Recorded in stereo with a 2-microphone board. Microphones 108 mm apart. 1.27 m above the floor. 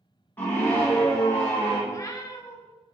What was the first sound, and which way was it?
A scream, 15° left (ahead or behind).